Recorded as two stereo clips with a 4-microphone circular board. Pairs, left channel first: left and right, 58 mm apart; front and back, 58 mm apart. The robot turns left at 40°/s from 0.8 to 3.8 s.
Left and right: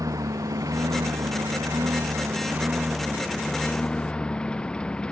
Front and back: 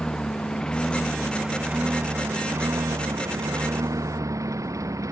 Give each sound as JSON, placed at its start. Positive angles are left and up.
{"t": 0.0, "sound": "a lawn mower", "azimuth_deg": -75}